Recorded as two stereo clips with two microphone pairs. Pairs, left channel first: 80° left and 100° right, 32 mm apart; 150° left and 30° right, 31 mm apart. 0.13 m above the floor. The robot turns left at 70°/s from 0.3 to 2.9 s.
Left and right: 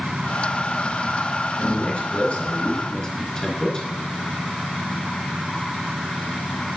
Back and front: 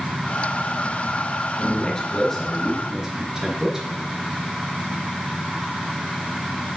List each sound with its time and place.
1.6 s a man speaking: 120° left, 1.7 m; by 3.9 s 30° left, 1.7 m